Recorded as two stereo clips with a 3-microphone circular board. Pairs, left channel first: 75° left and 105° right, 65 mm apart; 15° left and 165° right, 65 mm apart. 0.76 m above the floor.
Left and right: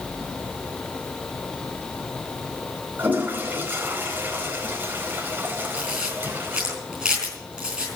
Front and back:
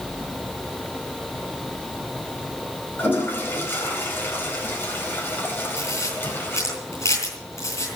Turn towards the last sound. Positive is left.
turn(degrees=-25)